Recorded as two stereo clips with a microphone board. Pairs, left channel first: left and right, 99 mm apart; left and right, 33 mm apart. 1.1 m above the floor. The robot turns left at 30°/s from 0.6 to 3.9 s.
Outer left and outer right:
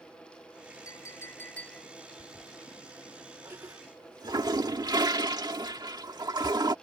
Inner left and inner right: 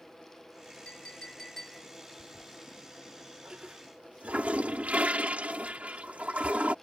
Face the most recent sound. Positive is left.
turn(degrees=-45)  # may be behind; listen again after turning